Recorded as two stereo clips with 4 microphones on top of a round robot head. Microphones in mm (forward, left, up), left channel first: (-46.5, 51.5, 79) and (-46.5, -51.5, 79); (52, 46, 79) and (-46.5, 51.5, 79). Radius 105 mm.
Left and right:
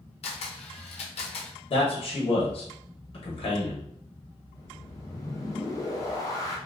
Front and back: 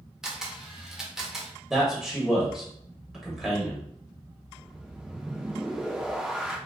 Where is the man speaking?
90° left, 1.0 m.